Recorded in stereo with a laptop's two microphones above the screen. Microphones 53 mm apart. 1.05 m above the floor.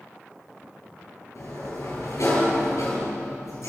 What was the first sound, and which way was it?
A sliding door, 70° left (ahead or behind).